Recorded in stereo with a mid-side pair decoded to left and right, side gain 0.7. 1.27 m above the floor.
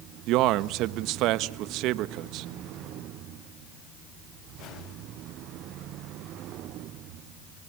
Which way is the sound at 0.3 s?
60° right.